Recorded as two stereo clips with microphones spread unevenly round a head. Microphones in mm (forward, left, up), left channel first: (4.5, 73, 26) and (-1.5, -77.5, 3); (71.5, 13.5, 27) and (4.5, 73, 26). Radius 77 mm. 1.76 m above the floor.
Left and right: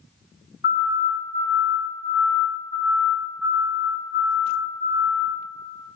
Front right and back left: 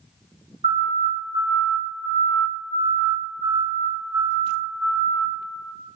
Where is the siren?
125° left, 3.5 m; by 5.2 s 150° right, 4.5 m.